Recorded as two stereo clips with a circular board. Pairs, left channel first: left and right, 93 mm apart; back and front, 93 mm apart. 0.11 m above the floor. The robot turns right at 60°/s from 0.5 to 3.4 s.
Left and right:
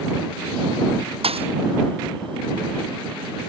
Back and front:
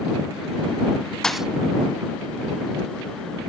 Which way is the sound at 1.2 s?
95° right.